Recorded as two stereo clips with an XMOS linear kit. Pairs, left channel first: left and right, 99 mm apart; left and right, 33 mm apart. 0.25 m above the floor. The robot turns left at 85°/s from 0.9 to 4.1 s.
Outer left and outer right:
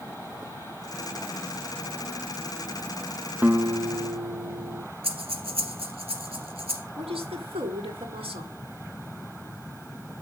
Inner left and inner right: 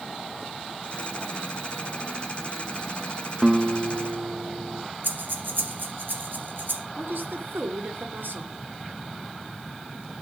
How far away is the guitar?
About 0.7 m.